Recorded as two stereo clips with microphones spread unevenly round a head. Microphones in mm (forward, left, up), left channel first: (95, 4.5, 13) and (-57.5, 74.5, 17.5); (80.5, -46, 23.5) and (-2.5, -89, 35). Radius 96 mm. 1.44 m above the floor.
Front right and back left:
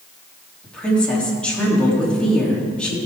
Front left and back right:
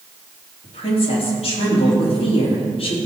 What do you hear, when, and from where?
0.6 s a woman speaking: 60° left, 3.5 m